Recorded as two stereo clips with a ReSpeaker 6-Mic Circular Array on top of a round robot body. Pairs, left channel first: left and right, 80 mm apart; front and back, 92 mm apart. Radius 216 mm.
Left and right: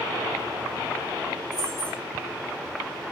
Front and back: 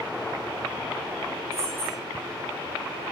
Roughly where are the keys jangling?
Behind left.